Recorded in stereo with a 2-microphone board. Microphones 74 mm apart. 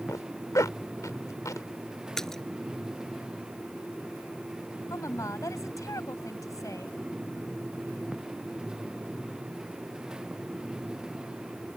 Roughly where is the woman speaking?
Left.